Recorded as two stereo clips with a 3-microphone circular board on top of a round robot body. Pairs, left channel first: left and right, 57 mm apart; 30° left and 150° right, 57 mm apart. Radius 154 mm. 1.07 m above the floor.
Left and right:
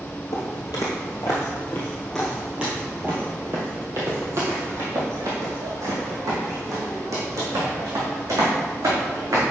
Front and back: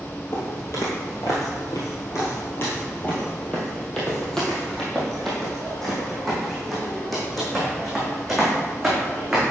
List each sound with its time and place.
0.3 s footsteps: 80° left, 1.4 m; by 9.4 s 60° right, 4 m